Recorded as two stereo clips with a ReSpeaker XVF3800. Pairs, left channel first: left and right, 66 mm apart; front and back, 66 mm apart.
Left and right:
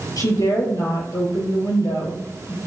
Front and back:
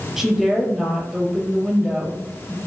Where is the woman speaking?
90° left, 3.5 m.